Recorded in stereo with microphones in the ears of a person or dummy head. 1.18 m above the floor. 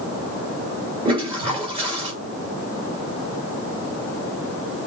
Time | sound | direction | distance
1.1 | a toilet flushing | 30° right (ahead or behind) | 2.5 m